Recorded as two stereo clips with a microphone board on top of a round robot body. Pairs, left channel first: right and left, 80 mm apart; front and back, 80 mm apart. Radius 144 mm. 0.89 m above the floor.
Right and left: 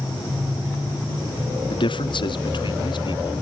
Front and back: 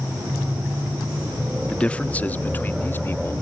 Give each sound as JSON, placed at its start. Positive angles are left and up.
{"t": 1.7, "sound": "a man speaking", "azimuth_deg": -80}